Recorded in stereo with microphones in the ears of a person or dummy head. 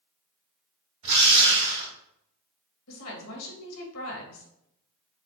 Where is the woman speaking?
80° left, 1.6 m.